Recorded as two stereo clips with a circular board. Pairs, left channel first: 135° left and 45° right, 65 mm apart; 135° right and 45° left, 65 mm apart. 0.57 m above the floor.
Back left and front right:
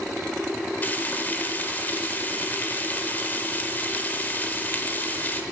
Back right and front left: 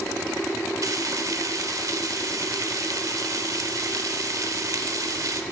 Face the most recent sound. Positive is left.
turn(degrees=75)